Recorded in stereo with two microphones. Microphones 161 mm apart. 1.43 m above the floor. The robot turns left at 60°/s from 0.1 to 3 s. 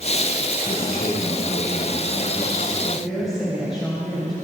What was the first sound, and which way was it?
A man speaking, 120° left.